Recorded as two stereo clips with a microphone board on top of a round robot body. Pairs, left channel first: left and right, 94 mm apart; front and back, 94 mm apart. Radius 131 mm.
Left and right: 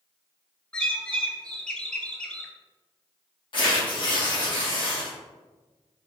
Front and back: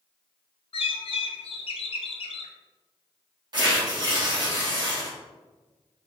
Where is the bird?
10° left, 0.7 m.